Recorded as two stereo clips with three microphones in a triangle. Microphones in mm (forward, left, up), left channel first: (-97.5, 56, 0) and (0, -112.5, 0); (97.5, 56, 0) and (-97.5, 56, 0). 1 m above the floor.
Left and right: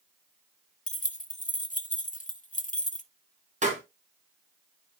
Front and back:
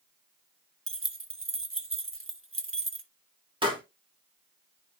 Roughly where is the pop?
Behind right.